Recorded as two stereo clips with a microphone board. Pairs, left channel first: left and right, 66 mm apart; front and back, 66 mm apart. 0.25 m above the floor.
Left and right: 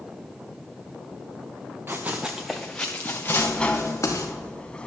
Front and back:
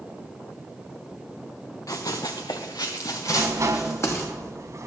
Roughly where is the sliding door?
Behind.